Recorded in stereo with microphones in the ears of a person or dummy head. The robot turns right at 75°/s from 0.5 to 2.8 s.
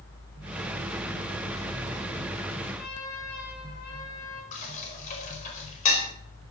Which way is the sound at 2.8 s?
45° left (ahead or behind).